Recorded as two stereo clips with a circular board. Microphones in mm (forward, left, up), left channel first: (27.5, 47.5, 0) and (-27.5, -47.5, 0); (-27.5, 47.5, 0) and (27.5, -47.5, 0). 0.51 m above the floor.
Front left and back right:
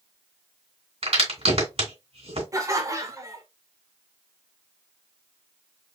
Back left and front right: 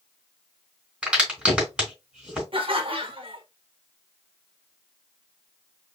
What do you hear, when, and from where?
1.0 s a crack: 140° right, 2.5 m
2.5 s laughter: 65° right, 1.2 m